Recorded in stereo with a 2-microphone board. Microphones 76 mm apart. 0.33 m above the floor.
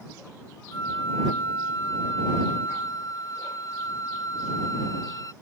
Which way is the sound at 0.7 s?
55° left (ahead or behind).